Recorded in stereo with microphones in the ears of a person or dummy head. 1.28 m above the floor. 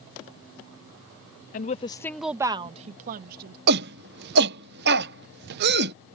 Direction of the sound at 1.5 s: 40° left (ahead or behind).